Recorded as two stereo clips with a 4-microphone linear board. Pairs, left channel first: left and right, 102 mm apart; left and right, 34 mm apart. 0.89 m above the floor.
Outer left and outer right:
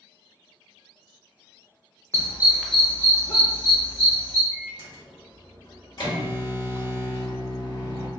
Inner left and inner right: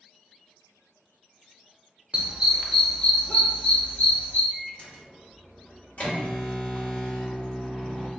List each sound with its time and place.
2.1 s a dog barking: 35° right (ahead or behind), 0.5 m; by 4.4 s 55° left (ahead or behind), 1.2 m
4.5 s a microwave: 50° left (ahead or behind), 1.2 m